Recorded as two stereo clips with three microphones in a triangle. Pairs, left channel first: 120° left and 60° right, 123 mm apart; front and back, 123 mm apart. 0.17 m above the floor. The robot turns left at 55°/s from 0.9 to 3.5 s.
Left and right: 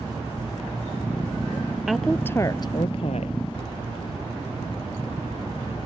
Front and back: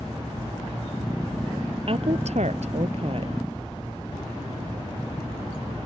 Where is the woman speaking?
145° right; by 3.3 s 135° left.